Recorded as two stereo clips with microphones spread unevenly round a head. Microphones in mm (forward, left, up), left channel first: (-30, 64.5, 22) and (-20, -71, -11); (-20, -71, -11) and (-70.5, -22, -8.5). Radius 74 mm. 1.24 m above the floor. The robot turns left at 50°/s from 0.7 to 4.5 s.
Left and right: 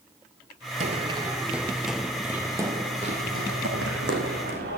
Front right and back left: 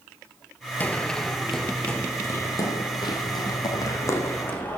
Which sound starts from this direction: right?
Running footsteps, at 0.8 s.